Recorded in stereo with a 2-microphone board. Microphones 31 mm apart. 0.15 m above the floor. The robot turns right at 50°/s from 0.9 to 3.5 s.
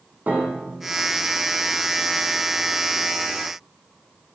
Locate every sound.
0.3 s a piano: 65° right (ahead or behind), 4 m